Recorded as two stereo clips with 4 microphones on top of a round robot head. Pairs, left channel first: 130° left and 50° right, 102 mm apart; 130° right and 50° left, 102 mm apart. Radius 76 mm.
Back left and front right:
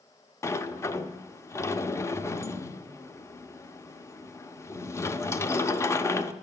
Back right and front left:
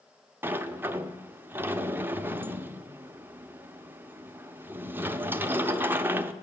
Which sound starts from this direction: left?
A sliding door, at 0.4 s.